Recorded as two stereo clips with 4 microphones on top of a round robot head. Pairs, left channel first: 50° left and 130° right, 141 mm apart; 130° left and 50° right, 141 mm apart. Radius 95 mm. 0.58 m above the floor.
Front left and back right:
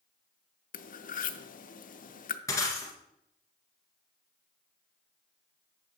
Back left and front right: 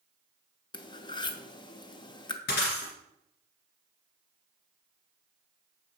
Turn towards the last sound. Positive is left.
turn(degrees=120)